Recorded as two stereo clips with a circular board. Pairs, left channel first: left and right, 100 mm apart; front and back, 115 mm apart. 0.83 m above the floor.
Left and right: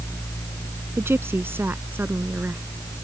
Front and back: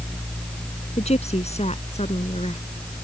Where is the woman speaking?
25° right; by 2.6 s 20° right.